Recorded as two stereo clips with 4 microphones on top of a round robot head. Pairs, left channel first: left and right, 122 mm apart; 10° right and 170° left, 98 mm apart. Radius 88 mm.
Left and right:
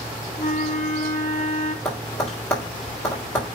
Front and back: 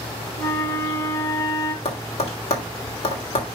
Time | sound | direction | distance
0.4 | a flute | 40° left | 2 m
1.9 | tapping | 5° left | 3 m